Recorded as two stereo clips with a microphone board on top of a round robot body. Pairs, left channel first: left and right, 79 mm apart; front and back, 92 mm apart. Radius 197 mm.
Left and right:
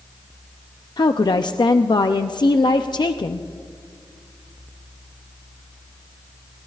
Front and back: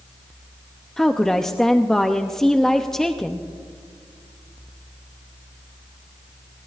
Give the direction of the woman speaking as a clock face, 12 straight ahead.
9 o'clock.